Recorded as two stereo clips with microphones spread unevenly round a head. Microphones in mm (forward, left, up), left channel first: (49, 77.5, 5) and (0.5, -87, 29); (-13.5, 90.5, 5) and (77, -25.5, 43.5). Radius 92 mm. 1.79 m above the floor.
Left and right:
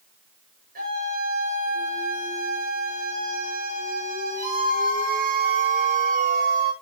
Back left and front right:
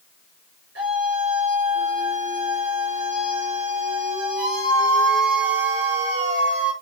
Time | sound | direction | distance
0.8 | a scream | 70° right | 8.5 m